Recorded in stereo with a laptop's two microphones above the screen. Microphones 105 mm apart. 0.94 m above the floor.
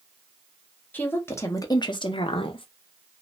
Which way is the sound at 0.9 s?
20° left (ahead or behind).